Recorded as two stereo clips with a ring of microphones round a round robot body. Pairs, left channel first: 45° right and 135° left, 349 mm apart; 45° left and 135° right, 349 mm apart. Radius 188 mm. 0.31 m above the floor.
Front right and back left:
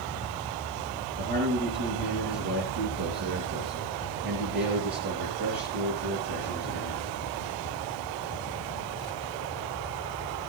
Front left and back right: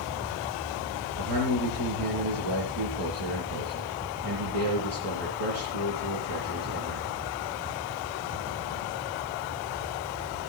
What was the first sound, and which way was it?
A man speaking, 160° right.